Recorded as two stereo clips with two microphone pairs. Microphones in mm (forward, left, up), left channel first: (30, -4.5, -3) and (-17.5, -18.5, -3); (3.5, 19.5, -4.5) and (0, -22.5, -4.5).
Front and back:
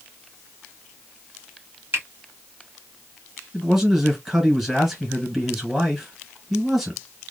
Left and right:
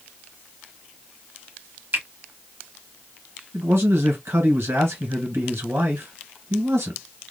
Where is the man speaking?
80° right, 1.8 m.